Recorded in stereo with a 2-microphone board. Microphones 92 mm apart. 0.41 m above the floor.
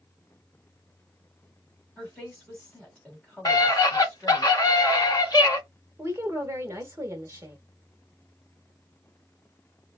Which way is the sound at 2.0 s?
10° left (ahead or behind).